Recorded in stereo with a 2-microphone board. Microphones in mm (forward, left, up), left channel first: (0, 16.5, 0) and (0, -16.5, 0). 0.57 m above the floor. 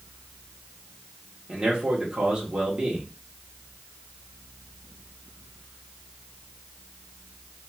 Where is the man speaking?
25° right (ahead or behind), 1.7 m.